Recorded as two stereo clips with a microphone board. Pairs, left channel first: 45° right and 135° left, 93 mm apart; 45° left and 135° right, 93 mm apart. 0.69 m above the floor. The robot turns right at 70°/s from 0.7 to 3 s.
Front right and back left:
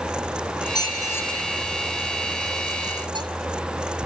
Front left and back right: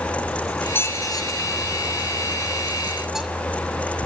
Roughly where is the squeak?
Ahead.